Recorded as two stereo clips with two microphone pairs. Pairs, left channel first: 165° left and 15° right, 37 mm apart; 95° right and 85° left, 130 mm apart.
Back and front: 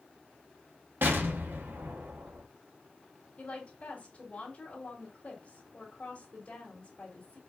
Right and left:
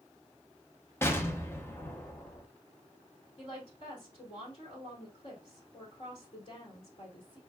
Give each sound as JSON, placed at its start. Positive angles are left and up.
{"t": 1.0, "sound": "an explosion", "azimuth_deg": -25, "distance_m": 0.9}
{"t": 3.4, "sound": "a woman speaking", "azimuth_deg": -135, "distance_m": 2.0}